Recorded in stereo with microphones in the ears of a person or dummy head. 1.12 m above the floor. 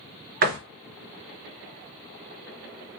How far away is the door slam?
About 0.8 m.